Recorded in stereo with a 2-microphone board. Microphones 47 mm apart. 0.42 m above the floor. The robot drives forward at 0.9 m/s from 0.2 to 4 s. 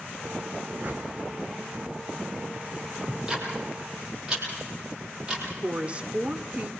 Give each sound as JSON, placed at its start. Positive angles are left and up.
{"t": 0.8, "sound": "a whoosh", "side_deg": -35, "distance_m": 4.0}
{"t": 3.1, "sound": "ticking", "side_deg": -15, "distance_m": 7.5}
{"t": 5.6, "sound": "a woman speaking", "side_deg": -25, "distance_m": 1.4}